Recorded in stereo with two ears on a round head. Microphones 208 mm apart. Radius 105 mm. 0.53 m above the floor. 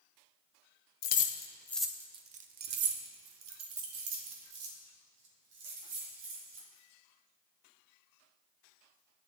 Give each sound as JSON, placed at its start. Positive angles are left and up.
{"t": 1.0, "sound": "keys jangling", "side_deg": 40, "distance_m": 0.6}